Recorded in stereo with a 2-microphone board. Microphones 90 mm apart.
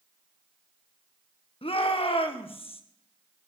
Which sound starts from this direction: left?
A shout, at 1.6 s.